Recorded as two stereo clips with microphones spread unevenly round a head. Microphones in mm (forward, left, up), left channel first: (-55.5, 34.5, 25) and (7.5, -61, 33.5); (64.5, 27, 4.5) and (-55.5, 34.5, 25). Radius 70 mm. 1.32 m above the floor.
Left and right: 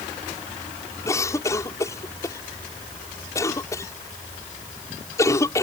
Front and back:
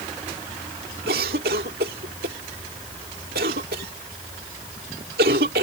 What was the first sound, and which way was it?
A cough, 170° right.